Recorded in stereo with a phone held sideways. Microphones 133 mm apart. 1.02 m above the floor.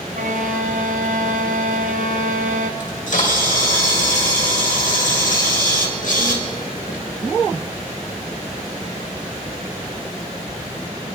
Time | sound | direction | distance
0.1 | a violin | 70° right (ahead or behind) | 0.7 m
2.8 | a camera shutter | 70° left (ahead or behind) | 2.0 m